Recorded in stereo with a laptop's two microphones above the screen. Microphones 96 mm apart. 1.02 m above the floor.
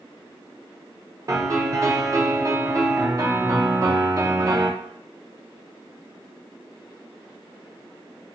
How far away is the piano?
About 0.6 m.